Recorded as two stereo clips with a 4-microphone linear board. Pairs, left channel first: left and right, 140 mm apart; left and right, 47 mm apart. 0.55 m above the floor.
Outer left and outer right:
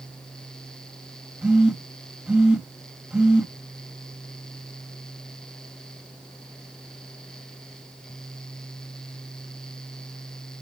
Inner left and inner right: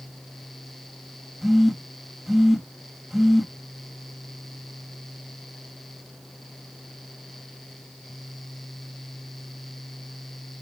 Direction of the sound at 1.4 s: 10° right (ahead or behind).